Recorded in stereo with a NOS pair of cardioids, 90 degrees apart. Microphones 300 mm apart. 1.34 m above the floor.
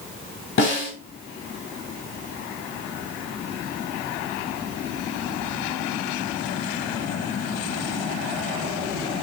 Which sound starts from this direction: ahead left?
A snare drum, at 0.6 s.